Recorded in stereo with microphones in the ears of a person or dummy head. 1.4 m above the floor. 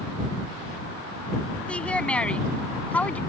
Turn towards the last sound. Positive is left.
turn(degrees=10)  # may be behind; listen again after turning